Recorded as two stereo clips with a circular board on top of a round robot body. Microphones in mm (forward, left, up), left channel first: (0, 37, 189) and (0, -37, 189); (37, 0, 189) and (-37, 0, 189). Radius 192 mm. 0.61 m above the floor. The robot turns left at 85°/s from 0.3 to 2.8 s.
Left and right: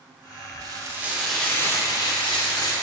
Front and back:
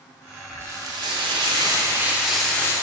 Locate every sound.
0.6 s frying: 120° right, 0.8 m; by 2.7 s 55° left, 0.8 m